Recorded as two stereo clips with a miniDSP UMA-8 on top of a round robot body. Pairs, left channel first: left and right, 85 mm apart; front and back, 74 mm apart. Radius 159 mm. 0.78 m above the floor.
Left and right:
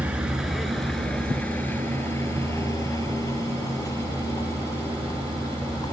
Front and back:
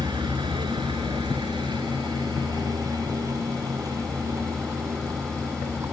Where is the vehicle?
165° right; by 5.9 s 130° left.